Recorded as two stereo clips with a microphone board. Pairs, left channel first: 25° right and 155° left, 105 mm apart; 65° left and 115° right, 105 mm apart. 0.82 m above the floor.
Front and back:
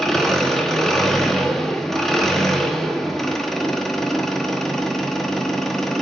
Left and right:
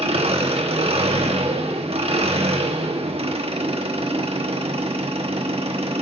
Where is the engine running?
110° right, 1.1 m.